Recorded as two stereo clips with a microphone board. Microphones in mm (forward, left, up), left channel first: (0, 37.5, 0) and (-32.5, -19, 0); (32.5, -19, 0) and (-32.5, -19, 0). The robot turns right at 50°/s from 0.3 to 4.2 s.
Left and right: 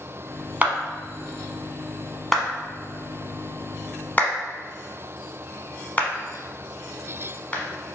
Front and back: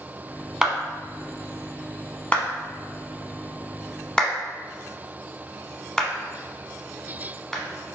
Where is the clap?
115° right, 0.8 m; by 8.0 s 65° left, 0.8 m.